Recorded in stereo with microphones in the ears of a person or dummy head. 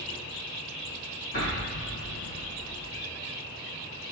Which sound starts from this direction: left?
An explosion, at 1.3 s.